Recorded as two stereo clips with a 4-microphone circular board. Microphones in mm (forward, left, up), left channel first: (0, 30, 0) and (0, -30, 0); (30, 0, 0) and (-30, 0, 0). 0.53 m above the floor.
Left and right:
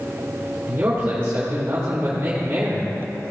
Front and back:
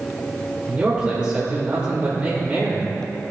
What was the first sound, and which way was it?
A man speaking, 125° right.